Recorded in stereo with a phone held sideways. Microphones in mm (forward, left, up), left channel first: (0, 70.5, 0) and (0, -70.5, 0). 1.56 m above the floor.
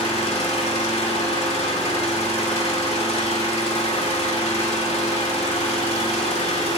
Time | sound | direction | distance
0.0 | an engine running | 45° left (ahead or behind) | 1.6 m